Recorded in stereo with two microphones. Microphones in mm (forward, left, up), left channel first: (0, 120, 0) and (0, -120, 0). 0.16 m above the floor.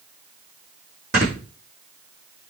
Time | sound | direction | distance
1.1 | snoring | 45° right (ahead or behind) | 7 m